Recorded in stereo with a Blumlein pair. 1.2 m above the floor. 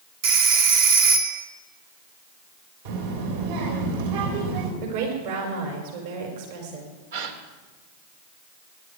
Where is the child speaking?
50° right, 3.5 m.